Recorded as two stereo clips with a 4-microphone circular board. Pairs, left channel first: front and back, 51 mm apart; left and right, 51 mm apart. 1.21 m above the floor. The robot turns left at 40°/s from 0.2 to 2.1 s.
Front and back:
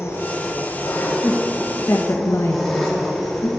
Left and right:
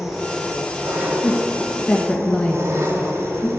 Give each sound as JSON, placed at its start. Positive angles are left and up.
{"t": 0.0, "sound": "an engine running", "azimuth_deg": -10, "distance_m": 2.5}
{"t": 1.2, "sound": "a woman speaking", "azimuth_deg": 55, "distance_m": 1.3}